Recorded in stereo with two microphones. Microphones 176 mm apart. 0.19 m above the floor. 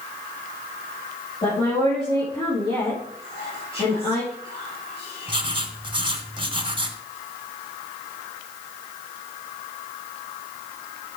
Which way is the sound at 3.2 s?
30° left (ahead or behind).